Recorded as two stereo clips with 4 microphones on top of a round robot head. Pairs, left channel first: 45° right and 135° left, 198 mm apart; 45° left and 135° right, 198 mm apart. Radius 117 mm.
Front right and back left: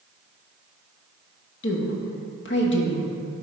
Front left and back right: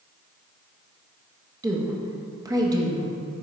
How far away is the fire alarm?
I don't hear a fire alarm.